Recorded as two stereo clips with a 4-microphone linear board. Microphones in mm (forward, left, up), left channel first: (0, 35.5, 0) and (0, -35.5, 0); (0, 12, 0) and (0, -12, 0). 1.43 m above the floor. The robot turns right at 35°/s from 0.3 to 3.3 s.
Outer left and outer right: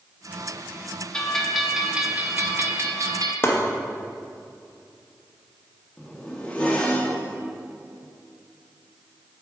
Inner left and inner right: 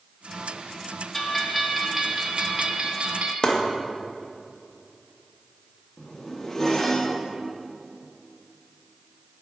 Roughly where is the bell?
Behind.